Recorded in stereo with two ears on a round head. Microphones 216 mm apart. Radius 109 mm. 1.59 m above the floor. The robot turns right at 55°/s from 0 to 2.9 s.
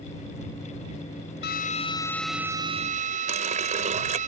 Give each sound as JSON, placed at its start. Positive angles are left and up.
{"t": 1.4, "sound": "a drill", "azimuth_deg": 135}
{"t": 3.3, "sound": "a running tap", "side_deg": -30}